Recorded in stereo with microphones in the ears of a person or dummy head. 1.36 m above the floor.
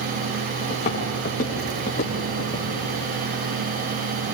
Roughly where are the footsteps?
Left.